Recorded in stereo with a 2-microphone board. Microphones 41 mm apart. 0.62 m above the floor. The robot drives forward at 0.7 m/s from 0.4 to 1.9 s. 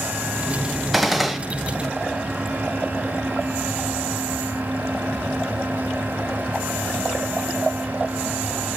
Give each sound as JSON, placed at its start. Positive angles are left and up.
{"t": 0.9, "sound": "a gunshot", "side_deg": 0, "distance_m": 1.0}